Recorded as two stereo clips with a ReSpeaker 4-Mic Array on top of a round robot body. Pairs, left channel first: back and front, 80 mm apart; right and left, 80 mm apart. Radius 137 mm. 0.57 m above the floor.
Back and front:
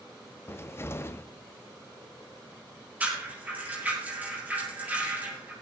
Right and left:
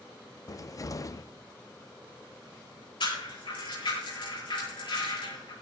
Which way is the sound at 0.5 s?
125° right.